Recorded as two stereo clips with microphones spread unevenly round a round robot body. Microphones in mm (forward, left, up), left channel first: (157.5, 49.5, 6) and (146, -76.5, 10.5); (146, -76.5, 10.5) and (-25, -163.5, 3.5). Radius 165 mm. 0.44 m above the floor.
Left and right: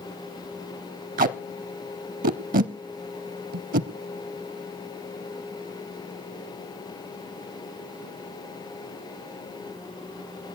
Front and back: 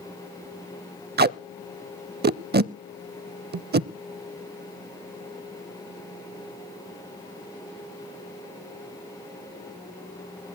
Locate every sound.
1.2 s tape being pulled: 110° right, 0.5 m